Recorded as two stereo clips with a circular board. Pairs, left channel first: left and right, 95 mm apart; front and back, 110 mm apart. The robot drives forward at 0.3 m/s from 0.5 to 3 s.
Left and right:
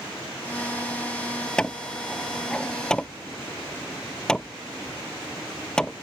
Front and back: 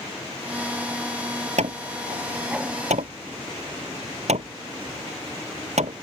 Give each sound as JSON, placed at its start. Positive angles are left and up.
{"t": 1.6, "sound": "hammering", "azimuth_deg": 170}